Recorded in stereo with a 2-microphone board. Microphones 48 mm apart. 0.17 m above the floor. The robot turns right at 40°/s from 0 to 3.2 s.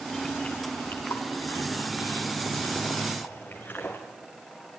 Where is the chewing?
20° left (ahead or behind), 5 m; by 4.0 s 40° left (ahead or behind), 5 m.